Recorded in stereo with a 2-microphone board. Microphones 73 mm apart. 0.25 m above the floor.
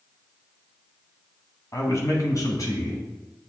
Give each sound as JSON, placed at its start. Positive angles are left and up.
{"t": 1.7, "sound": "a man speaking", "side_deg": 45, "distance_m": 1.4}